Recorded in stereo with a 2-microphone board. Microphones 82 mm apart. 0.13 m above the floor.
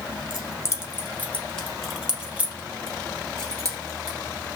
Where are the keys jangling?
45° left (ahead or behind), 1.2 m; by 4.2 s 50° right (ahead or behind), 1.6 m.